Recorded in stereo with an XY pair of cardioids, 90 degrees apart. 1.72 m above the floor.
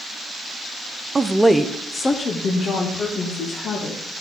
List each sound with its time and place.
1.1 s a woman speaking: 25° right, 0.6 m; by 4.0 s 65° left, 2.5 m